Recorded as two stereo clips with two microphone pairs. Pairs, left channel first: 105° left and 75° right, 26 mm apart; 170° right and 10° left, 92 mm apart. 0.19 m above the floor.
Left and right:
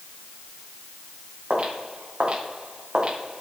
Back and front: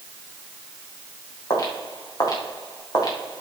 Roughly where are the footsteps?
Behind right.